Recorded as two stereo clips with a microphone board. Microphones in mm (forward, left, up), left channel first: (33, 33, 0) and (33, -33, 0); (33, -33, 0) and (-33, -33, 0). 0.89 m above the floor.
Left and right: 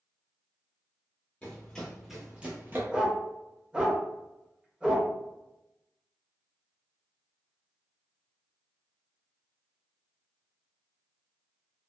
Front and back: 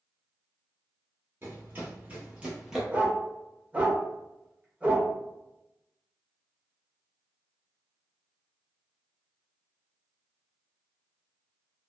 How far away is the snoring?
No snoring in this recording.